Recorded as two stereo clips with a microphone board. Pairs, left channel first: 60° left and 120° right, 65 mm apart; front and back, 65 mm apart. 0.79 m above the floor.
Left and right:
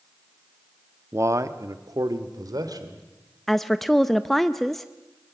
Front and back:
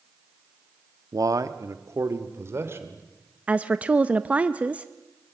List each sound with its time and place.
1.1 s a man speaking: 165° right, 1.0 m; by 3.1 s 125° right, 2.5 m
3.5 s a woman speaking: 145° left, 0.5 m